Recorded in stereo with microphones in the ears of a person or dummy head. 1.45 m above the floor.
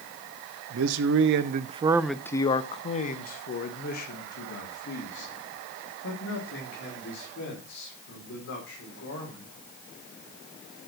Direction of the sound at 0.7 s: 80° right.